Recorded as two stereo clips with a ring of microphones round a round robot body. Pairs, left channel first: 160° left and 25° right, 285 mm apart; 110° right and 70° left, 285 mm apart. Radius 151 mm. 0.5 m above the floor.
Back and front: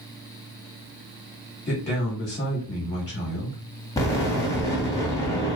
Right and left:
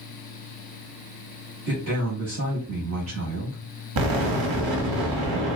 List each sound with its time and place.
1.7 s a man speaking: 95° left, 1.1 m
4.0 s an explosion: 80° left, 0.9 m